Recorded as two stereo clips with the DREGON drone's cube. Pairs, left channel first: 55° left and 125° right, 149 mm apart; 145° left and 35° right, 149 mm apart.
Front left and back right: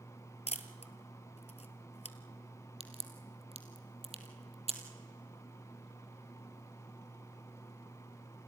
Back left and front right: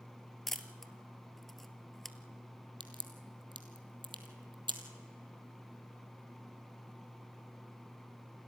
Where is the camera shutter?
60° left, 1.1 m.